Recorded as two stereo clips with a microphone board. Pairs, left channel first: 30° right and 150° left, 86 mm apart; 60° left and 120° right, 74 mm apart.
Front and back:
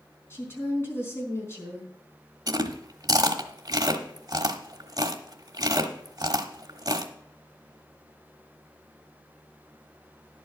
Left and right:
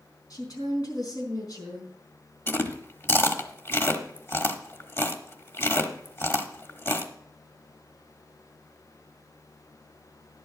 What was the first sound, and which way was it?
A woman speaking, 30° left.